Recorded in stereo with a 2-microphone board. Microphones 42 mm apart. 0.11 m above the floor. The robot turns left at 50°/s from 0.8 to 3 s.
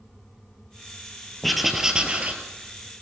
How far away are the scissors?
I don't hear scissors.